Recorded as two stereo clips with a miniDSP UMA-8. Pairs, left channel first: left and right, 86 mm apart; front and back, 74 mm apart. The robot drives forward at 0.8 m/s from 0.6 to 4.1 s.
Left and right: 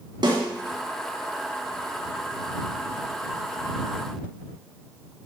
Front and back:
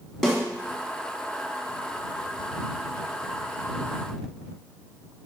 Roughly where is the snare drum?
Right.